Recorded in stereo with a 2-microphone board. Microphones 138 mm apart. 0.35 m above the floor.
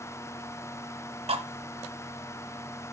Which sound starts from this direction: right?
Cutlery clinking, at 1.3 s.